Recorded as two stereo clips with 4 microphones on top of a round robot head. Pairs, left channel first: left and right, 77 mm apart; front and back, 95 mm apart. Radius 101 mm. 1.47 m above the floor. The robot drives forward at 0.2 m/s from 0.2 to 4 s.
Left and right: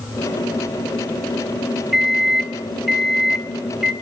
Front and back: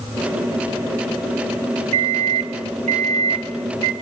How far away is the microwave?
About 0.7 m.